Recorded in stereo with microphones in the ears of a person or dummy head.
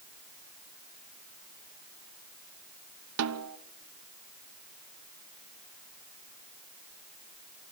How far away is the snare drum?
About 1.0 m.